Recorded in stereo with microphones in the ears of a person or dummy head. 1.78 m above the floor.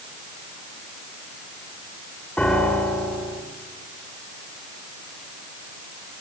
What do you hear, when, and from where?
2.4 s a piano: 10° left (ahead or behind), 3 m